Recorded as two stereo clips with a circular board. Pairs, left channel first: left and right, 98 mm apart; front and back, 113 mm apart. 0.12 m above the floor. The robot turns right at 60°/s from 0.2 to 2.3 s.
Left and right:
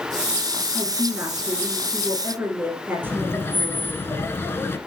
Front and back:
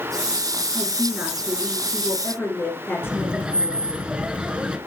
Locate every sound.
0.7 s a woman speaking: 140° right, 1.8 m; by 4.0 s 45° right, 1.8 m
3.0 s laughter: 110° left, 1.2 m